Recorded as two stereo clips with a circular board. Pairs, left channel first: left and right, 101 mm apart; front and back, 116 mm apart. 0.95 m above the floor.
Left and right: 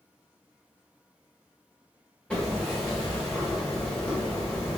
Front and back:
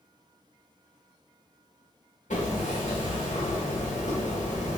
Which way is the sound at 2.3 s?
10° left.